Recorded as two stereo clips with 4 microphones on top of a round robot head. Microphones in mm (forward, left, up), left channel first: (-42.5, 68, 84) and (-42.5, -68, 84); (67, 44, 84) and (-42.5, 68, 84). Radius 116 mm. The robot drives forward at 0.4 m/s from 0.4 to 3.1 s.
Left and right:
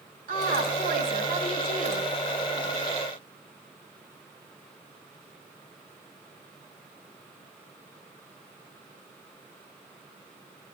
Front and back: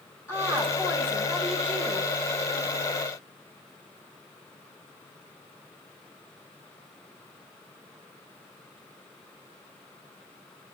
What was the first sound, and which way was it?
A woman speaking, 85° right.